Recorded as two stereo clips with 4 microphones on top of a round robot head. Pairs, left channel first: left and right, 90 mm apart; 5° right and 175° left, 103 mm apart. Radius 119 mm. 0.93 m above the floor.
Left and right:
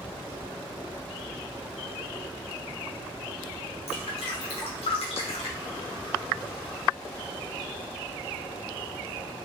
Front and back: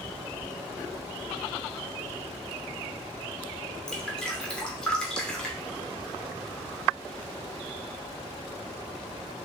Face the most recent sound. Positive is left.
turn(degrees=75)